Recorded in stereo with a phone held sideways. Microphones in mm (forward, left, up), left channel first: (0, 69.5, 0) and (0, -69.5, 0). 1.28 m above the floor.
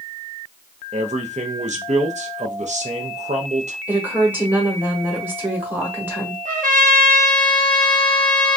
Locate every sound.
0.9 s a man speaking: 55° right (ahead or behind), 0.6 m
3.9 s a woman speaking: 15° right (ahead or behind), 1.0 m
6.5 s a trumpet: 70° right (ahead or behind), 1.0 m